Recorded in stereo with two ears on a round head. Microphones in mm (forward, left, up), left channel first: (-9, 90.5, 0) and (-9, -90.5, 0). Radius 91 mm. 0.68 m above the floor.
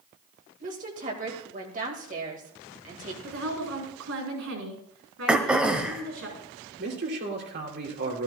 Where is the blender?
I don't hear a blender.